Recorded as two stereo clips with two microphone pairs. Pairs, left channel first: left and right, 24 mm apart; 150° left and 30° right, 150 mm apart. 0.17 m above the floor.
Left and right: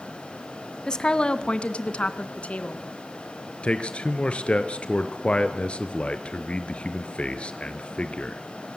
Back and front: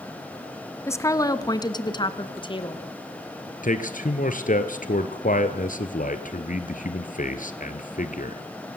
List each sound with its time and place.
0.9 s a woman speaking: 105° left, 1.4 m
3.6 s a man speaking: 130° left, 2.5 m